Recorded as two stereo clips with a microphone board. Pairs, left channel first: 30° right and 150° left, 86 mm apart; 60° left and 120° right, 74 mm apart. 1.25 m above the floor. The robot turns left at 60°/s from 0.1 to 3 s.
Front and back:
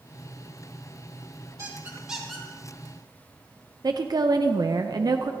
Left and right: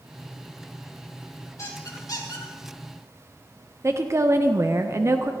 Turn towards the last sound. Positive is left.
turn(degrees=-170)